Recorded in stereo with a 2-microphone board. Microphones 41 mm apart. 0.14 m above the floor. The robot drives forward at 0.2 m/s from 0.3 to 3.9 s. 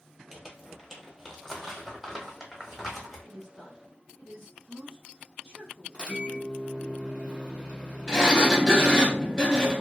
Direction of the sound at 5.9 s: 20° right (ahead or behind).